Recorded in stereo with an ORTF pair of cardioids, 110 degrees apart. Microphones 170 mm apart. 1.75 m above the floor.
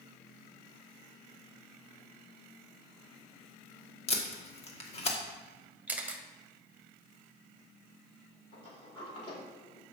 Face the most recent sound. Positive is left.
turn(degrees=35)